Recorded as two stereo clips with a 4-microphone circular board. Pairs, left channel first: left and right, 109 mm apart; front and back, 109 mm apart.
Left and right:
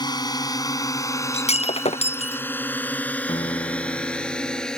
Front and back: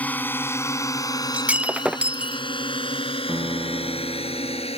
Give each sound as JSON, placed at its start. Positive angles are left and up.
{"t": 0.0, "sound": "a drone", "azimuth_deg": 70}
{"t": 1.3, "sound": "breaking glass", "azimuth_deg": 100}
{"t": 3.3, "sound": "a piano", "azimuth_deg": 125}